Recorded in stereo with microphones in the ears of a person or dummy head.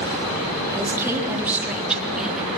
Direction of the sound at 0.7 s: 15° right (ahead or behind).